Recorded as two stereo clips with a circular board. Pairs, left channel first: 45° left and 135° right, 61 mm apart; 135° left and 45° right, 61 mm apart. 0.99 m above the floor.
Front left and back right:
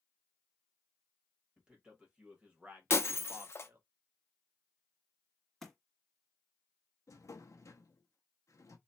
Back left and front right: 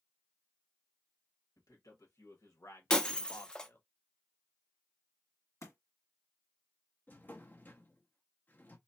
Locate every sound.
1.6 s a man speaking: 150° left, 1.8 m; by 3.8 s straight behind, 0.9 m
2.9 s breaking glass: 65° left, 0.5 m
5.6 s a thud: 130° left, 1.4 m
7.1 s a drawer: 75° left, 0.7 m